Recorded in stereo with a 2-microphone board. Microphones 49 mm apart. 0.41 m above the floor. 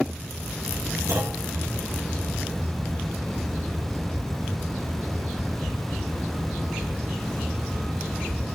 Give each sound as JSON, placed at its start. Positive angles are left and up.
{"t": 1.1, "sound": "a clunk", "side_deg": -65, "distance_m": 6.0}